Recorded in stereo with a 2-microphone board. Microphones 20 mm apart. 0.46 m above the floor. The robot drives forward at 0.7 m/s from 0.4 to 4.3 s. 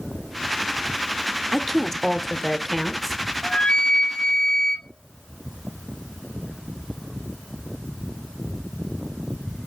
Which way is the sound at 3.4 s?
65° left (ahead or behind).